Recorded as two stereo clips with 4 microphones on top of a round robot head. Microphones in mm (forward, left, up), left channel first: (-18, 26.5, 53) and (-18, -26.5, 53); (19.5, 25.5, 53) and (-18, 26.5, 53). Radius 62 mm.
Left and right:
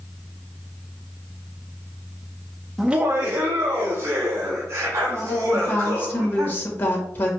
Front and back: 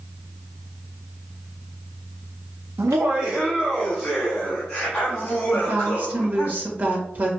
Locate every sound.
2.8 s laughter: 175° right, 0.6 m; by 6.5 s 65° right, 4 m
5.5 s a woman speaking: 140° left, 1.8 m